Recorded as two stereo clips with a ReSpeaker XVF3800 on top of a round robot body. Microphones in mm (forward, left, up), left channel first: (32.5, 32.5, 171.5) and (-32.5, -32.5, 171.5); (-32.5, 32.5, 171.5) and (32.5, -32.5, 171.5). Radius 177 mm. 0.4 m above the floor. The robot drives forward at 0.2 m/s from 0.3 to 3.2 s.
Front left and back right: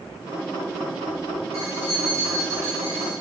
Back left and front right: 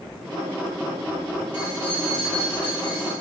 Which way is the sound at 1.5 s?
165° left.